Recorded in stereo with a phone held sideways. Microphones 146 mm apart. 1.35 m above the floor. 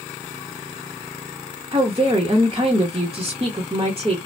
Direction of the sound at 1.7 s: 35° right (ahead or behind).